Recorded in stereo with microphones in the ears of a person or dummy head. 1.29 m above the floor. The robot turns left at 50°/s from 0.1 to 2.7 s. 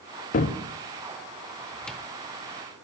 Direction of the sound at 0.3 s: 40° left (ahead or behind).